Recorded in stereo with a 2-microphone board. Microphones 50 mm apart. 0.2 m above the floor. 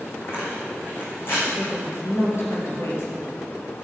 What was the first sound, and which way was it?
Tearing paper, 50° left (ahead or behind).